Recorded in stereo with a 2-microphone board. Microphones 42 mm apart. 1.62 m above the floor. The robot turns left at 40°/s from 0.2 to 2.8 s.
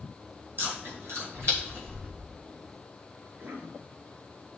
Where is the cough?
50° right (ahead or behind), 4 m.